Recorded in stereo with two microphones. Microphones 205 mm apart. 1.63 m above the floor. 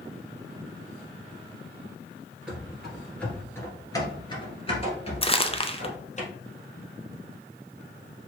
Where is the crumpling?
25° left (ahead or behind), 0.5 m.